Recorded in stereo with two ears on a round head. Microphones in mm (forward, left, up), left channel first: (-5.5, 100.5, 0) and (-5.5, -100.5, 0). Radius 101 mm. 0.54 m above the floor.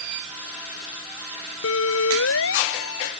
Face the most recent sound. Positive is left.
turn(degrees=60)  # may be behind; listen again after turning